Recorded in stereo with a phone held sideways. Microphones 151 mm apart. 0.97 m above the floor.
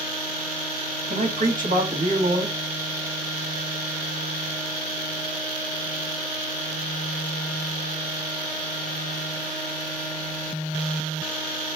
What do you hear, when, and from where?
1.1 s a man speaking: 60° right (ahead or behind), 1.5 m